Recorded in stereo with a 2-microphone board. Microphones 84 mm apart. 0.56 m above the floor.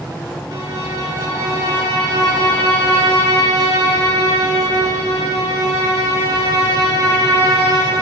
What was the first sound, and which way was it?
A violin, 45° right (ahead or behind).